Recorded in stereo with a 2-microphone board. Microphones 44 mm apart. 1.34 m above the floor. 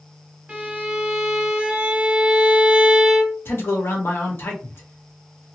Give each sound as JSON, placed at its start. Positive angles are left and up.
{"t": 0.5, "sound": "a violin", "side_deg": -25, "distance_m": 1.2}
{"t": 3.5, "sound": "a man speaking", "side_deg": 60, "distance_m": 1.2}